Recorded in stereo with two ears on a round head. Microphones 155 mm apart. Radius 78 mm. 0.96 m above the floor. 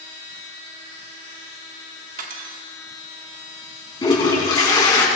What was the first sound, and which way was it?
Cutlery clinking, 50° right (ahead or behind).